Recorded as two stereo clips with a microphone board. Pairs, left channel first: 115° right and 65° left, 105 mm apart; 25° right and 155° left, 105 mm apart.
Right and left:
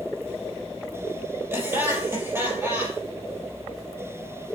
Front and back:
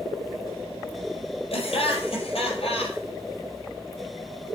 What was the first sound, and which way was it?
Laughter, straight ahead.